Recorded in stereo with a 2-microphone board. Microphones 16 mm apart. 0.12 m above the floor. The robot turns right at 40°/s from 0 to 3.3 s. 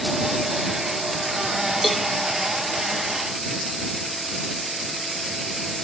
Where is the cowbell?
5° left (ahead or behind); by 2.1 s centre (ahead or behind).